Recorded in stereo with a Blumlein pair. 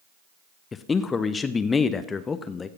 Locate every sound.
0.7 s a man speaking: 15° left, 0.6 m